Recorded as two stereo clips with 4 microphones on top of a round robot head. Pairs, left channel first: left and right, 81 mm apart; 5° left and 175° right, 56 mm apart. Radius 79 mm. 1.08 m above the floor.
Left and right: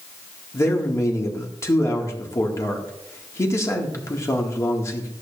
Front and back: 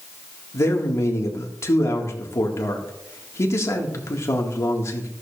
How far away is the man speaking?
About 1.7 m.